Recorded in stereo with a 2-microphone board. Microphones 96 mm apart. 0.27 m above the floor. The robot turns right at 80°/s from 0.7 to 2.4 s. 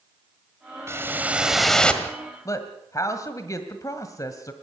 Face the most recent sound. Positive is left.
turn(degrees=35)  # may be behind; listen again after turning